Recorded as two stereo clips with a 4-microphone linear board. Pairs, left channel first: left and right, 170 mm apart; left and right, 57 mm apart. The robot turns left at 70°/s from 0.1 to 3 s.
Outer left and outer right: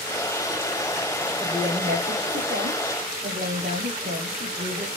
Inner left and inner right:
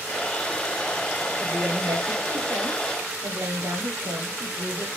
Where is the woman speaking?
5° right, 5.5 m; by 4.9 s 115° right, 5.5 m.